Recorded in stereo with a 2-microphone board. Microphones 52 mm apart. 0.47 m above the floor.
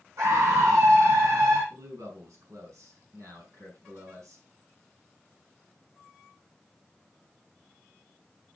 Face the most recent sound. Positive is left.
turn(degrees=-75)  # may be behind; listen again after turning